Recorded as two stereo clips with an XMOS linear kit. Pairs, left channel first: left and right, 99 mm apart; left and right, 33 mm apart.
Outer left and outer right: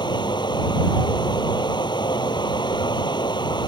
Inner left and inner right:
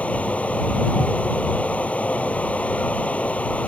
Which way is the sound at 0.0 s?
50° left (ahead or behind).